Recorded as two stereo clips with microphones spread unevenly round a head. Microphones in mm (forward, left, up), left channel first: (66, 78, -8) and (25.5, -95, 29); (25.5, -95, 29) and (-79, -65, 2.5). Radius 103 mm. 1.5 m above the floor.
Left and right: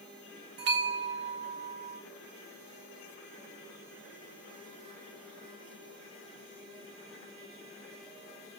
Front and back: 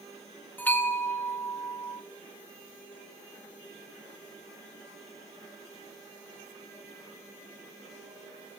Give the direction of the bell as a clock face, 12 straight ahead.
3 o'clock.